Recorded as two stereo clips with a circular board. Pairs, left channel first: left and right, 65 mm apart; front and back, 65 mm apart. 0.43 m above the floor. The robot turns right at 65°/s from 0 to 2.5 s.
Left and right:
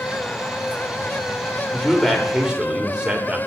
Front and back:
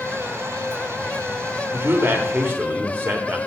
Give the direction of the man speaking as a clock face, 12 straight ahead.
7 o'clock.